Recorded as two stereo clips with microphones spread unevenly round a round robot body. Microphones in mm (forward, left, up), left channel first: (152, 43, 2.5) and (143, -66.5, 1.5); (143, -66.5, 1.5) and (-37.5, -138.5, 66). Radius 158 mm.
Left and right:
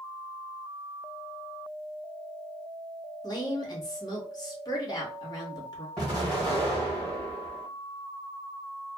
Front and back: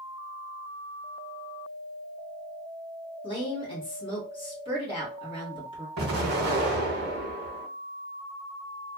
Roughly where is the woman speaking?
Ahead left.